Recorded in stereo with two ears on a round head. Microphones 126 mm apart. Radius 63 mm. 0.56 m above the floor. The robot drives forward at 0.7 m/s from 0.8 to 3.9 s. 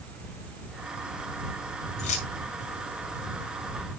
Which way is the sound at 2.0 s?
55° left (ahead or behind).